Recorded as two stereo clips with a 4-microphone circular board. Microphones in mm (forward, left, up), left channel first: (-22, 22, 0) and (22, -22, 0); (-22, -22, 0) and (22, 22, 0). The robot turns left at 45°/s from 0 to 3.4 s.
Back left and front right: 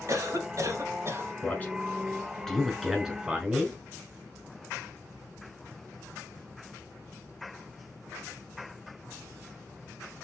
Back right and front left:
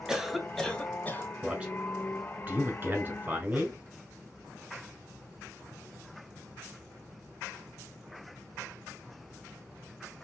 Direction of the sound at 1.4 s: 115° left.